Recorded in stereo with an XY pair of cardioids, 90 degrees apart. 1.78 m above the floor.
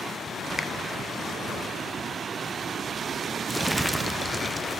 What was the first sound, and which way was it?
A finger snap, 30° left.